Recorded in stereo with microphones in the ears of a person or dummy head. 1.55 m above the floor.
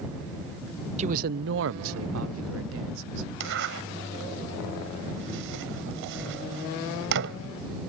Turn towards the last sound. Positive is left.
turn(degrees=-65)  # may be behind; listen again after turning